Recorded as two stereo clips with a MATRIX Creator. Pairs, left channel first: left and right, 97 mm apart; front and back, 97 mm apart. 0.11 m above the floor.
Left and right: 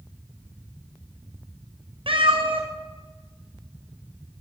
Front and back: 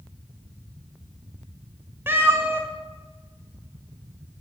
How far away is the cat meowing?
About 2.5 m.